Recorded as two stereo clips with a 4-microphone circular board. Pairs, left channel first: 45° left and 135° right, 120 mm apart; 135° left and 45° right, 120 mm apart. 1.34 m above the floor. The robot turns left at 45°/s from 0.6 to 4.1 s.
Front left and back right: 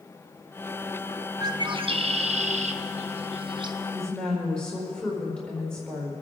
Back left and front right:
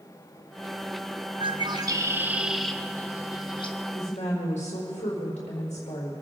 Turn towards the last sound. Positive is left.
turn(degrees=130)